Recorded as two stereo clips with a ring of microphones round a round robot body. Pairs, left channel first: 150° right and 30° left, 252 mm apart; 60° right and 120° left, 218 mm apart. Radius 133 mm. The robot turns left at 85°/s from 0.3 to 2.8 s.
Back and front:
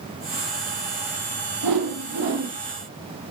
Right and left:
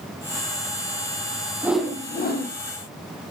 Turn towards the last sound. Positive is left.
turn(degrees=-55)